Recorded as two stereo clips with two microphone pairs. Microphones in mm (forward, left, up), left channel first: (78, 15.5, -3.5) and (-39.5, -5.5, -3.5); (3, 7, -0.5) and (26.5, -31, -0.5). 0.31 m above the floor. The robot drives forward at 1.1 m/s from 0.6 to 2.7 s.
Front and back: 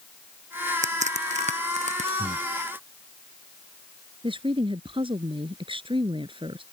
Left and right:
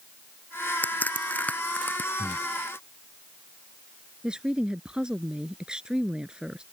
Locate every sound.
0.8 s a crack: 175° left
2.2 s breathing: 175° right
4.2 s a woman speaking: 130° right